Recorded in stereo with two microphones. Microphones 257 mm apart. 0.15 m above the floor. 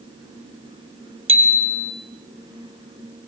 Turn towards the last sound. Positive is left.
turn(degrees=-50)  # may be behind; listen again after turning